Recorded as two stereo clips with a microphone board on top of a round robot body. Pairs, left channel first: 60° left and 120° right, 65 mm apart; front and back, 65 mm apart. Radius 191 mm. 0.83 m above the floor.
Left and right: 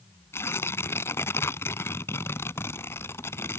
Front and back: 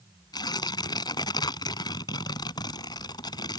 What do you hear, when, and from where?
0.3 s tearing paper: 5° left